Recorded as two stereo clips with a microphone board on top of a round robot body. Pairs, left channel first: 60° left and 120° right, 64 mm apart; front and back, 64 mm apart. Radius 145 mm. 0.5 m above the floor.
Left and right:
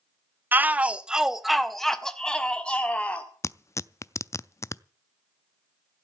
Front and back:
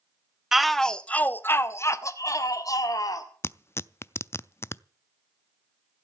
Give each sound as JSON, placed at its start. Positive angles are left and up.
{"t": 0.5, "sound": "a shout", "azimuth_deg": -100, "distance_m": 1.1}
{"t": 3.4, "sound": "tearing paper", "azimuth_deg": 35, "distance_m": 0.5}